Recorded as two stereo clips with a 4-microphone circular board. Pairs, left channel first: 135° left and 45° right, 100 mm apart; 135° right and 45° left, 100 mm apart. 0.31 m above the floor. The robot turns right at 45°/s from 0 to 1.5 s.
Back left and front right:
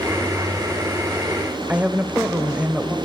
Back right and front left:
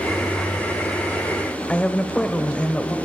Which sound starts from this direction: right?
A woman speaking, at 1.7 s.